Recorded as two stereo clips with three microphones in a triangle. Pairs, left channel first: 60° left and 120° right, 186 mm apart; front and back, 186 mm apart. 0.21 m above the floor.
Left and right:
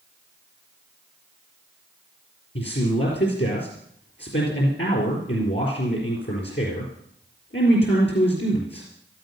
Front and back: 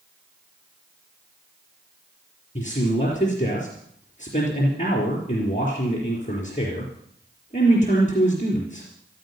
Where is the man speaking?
50° left, 4 m.